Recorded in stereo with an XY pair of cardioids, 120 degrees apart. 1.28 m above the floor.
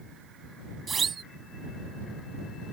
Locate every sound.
0.9 s a siren: 30° right